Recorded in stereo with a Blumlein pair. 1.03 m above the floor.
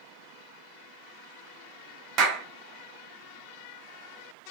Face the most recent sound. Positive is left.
turn(degrees=-30)